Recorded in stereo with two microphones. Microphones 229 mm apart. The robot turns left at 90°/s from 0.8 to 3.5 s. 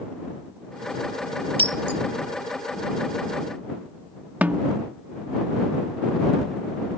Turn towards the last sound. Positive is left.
turn(degrees=-5)  # may be behind; listen again after turning